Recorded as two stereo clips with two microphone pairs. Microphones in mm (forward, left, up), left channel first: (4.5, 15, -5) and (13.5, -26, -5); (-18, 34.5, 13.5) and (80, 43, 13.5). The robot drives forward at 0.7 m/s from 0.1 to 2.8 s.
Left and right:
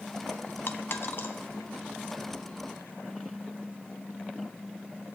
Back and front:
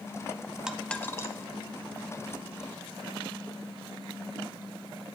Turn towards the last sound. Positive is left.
turn(degrees=160)